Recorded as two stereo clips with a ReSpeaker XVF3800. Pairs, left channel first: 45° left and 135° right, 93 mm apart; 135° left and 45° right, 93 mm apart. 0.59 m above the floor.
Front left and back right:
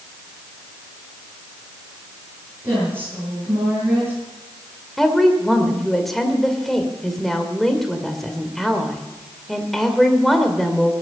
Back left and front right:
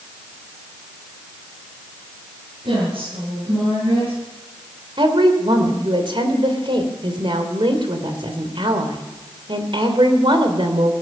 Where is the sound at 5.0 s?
40° right, 2.5 m.